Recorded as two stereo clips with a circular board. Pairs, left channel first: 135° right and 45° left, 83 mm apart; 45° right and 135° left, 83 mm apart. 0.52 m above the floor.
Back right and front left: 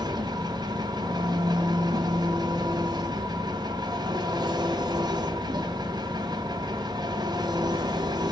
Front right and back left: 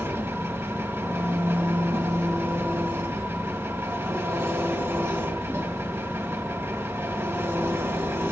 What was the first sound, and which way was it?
An engine running, 75° left.